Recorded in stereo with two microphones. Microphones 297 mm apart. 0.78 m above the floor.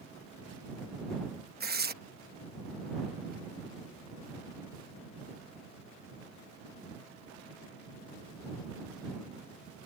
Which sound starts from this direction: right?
Tearing paper, at 1.6 s.